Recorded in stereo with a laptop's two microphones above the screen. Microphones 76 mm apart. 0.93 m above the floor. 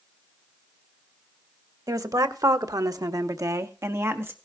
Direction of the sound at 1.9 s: 50° right (ahead or behind).